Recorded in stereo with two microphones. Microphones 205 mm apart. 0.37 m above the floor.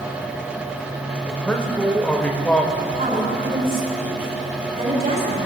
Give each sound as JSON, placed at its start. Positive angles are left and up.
{"t": 1.3, "sound": "a man speaking", "side_deg": 5, "distance_m": 1.1}
{"t": 2.7, "sound": "a woman speaking", "side_deg": -45, "distance_m": 5.0}